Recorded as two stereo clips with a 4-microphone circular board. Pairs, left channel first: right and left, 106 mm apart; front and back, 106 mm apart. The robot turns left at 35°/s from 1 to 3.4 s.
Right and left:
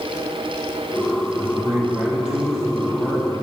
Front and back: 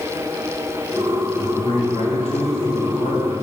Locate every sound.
1.4 s a man speaking: 40° left, 3 m; by 3.4 s 35° right, 3 m